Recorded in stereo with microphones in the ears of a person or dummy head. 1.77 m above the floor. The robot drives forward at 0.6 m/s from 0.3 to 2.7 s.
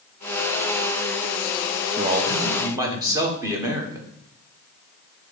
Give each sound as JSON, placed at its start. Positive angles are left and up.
{"t": 2.0, "sound": "a man speaking", "side_deg": -25, "distance_m": 1.0}